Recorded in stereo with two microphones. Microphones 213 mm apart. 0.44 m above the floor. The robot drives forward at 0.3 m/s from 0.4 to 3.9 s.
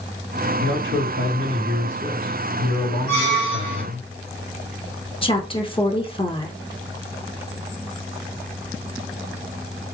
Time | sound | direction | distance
0.6 | a man speaking | 65° right (ahead or behind) | 3 m
3.1 | a squeak | 65° right (ahead or behind) | 2 m
5.2 | a woman speaking | 25° left (ahead or behind) | 0.9 m